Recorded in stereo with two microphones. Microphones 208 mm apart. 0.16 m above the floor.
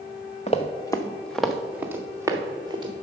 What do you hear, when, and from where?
0.5 s running footsteps: 30° left (ahead or behind), 0.8 m; by 2.9 s 20° right (ahead or behind), 1.6 m